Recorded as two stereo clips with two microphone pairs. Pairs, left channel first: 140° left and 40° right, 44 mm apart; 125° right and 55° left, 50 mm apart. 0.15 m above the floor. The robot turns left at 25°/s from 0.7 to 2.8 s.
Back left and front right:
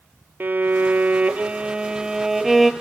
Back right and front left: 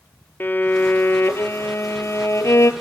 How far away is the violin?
About 1.0 m.